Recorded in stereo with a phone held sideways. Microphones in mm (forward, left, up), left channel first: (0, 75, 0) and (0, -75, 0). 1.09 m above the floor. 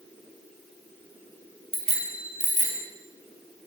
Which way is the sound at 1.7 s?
40° right (ahead or behind).